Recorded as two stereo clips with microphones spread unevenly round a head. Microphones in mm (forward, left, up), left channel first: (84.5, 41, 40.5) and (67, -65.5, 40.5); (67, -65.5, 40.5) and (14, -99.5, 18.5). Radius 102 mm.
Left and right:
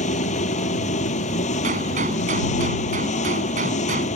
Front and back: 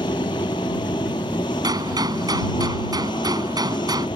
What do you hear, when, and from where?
0.0 s an engine running: 80° left
1.6 s a gunshot: 125° right